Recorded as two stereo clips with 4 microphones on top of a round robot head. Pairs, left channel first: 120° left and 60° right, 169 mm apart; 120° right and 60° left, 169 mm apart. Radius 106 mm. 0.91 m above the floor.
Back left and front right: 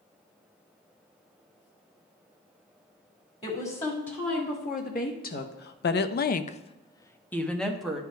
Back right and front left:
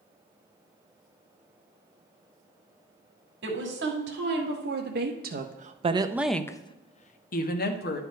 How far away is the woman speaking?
About 2.0 m.